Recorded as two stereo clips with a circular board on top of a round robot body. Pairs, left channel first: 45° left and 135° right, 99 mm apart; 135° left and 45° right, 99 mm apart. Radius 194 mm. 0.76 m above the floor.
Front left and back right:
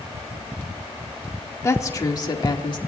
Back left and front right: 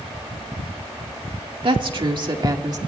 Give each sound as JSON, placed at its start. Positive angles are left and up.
{"t": 1.6, "sound": "a woman speaking", "azimuth_deg": -15, "distance_m": 1.9}